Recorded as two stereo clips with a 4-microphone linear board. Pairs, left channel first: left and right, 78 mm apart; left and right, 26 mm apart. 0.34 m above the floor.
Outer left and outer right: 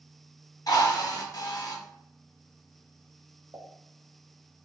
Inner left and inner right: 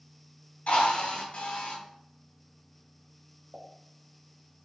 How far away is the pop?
About 1.2 m.